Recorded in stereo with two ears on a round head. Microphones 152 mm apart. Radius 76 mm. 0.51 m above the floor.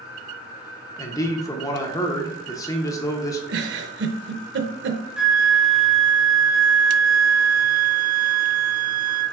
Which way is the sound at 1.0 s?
20° left (ahead or behind).